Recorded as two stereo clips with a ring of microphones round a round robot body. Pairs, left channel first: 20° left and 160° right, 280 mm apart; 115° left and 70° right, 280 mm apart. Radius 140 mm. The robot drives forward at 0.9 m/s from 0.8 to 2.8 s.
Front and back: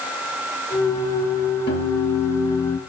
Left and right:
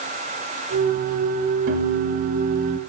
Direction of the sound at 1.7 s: 25° right.